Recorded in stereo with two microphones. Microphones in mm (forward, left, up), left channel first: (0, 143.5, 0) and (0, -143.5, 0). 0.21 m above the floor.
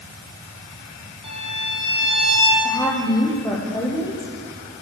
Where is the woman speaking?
10° left (ahead or behind), 8 m.